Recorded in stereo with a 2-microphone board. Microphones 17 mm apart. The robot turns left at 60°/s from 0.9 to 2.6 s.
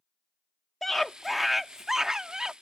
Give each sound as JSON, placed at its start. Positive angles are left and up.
{"t": 0.8, "sound": "a scream", "azimuth_deg": 30}